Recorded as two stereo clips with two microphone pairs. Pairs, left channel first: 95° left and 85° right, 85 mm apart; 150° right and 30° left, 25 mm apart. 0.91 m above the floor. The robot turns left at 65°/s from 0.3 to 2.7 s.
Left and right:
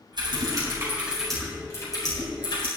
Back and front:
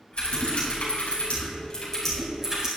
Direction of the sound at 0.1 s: 115° right.